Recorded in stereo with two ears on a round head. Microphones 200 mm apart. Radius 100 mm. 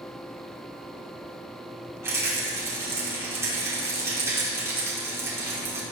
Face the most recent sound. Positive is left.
turn(degrees=-15)  # may be behind; listen again after turning